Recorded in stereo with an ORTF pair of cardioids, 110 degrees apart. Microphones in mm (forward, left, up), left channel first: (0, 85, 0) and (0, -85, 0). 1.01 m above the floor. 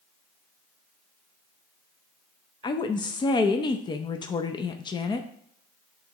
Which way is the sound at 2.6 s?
25° left.